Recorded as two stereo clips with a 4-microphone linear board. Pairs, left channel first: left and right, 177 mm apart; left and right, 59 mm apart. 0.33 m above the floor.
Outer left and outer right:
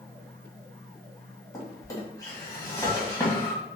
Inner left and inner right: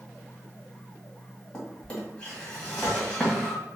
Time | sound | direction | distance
1.5 | a drawer | 20° left (ahead or behind) | 1.2 m